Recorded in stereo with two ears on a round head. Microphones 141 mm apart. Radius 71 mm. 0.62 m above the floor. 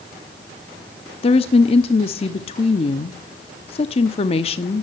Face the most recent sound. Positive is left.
turn(degrees=35)  # may be behind; listen again after turning